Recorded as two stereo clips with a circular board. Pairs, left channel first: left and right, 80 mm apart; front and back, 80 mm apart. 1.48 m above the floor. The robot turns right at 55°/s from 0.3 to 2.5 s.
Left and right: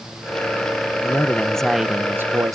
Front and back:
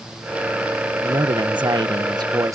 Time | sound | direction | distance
1.0 | a man speaking | 145° left | ?